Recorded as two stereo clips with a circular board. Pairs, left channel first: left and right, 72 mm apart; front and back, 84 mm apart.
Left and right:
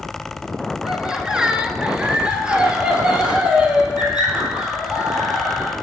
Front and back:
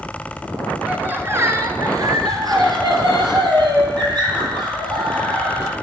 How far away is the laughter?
About 1.0 m.